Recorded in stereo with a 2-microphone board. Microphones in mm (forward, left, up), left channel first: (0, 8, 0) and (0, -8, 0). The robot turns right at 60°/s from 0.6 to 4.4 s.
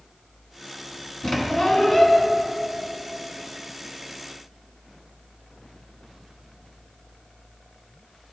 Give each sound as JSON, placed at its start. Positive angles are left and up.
{"t": 1.2, "sound": "a squeak", "azimuth_deg": 85, "distance_m": 1.0}